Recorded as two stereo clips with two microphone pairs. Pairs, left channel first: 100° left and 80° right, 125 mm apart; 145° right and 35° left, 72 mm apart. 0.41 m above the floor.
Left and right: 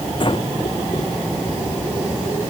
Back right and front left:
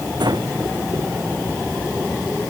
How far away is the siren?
I don't hear a siren.